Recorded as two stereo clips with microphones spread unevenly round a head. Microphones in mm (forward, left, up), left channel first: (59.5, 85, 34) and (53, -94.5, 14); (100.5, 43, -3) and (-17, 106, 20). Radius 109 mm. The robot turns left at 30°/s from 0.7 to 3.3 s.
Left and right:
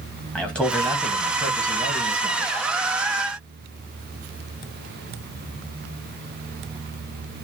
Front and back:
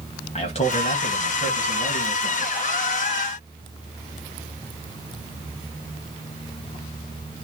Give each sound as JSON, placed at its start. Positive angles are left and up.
{"t": 0.3, "sound": "a man speaking", "azimuth_deg": 0, "distance_m": 1.7}